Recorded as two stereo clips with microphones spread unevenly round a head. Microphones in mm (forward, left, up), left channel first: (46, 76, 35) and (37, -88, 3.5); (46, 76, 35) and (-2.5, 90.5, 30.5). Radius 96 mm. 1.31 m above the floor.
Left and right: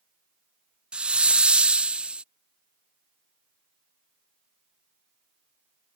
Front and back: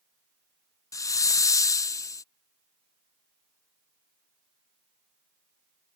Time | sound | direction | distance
0.9 | a hiss | 10° right | ?